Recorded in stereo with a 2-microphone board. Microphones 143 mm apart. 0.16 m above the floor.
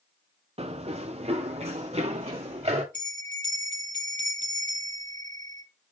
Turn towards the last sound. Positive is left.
turn(degrees=-60)  # may be behind; listen again after turning